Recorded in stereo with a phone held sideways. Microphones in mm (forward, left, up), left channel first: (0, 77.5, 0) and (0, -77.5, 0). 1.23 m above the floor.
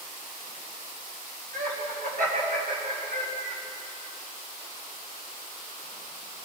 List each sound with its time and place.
1.5 s laughter: 65° right (ahead or behind), 8 m; by 3.6 s 70° right (ahead or behind), 7 m